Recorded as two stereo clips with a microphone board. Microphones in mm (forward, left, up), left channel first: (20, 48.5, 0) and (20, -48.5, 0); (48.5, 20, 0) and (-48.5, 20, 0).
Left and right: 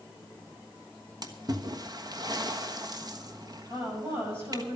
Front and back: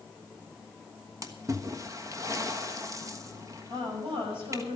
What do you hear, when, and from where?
1.2 s a splash: 130° right, 1.2 m
3.7 s a woman speaking: 150° right, 7 m